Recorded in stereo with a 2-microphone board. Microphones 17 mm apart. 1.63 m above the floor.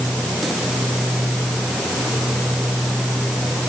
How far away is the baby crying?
No baby crying in this recording.